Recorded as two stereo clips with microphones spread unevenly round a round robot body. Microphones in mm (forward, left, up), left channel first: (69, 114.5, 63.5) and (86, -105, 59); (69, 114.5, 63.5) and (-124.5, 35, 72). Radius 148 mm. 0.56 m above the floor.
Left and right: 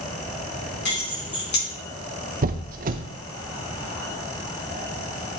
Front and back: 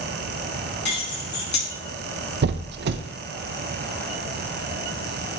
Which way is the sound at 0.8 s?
55° left.